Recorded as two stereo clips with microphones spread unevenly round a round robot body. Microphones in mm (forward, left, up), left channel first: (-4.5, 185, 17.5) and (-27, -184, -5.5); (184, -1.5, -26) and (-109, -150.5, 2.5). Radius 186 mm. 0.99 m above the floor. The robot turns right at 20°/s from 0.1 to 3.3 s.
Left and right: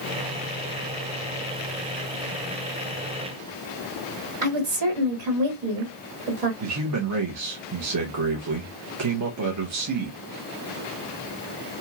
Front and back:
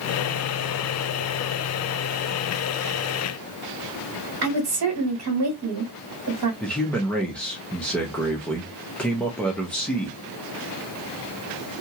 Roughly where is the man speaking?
Ahead right.